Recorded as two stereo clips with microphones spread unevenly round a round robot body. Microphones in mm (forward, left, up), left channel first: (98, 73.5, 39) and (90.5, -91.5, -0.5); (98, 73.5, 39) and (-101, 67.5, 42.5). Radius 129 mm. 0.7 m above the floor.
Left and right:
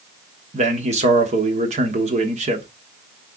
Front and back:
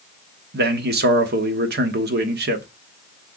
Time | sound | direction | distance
0.5 | a man speaking | 140° right | 1.1 m